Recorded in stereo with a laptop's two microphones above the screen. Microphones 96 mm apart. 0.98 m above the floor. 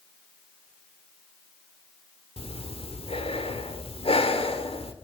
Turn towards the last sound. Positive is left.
turn(degrees=85)